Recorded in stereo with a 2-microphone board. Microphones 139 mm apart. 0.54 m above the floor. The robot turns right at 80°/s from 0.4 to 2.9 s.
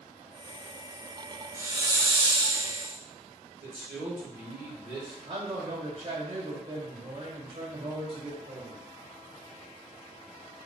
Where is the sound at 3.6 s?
15° right (ahead or behind), 2.5 m.